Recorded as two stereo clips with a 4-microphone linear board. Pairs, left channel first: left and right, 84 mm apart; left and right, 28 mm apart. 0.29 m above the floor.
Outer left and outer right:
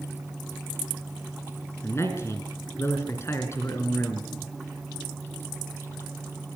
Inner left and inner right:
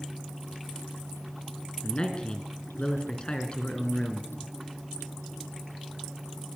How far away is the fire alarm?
No fire alarm in this recording.